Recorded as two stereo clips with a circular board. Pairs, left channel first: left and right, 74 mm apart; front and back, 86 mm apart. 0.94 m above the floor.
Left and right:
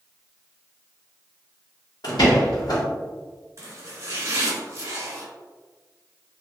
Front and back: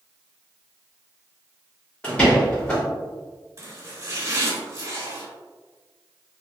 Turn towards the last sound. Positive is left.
turn(degrees=-135)